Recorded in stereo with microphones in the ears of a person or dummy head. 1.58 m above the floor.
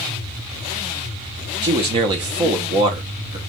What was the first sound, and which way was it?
A man speaking, 30° right (ahead or behind).